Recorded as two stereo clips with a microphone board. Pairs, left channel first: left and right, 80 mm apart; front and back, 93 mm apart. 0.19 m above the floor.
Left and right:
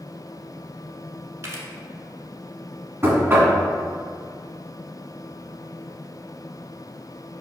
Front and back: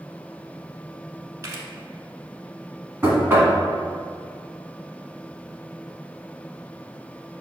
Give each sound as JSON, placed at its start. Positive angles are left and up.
{"t": 1.4, "sound": "a camera shutter", "azimuth_deg": -130, "distance_m": 0.7}
{"t": 3.0, "sound": "knocking", "azimuth_deg": -130, "distance_m": 1.0}